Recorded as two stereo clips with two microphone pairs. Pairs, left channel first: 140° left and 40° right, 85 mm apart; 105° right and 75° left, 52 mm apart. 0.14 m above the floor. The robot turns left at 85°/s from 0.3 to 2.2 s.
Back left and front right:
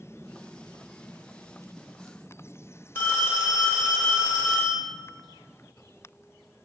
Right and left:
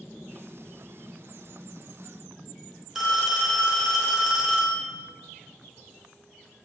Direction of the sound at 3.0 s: 155° left.